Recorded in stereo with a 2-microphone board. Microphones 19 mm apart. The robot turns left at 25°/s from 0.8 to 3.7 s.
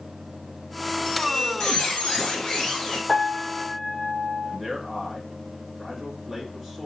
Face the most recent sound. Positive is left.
turn(degrees=-20)  # may be behind; listen again after turning